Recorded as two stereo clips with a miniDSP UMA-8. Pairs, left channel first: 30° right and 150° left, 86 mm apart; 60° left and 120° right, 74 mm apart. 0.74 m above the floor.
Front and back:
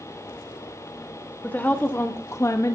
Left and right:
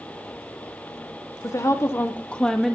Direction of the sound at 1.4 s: 35° left.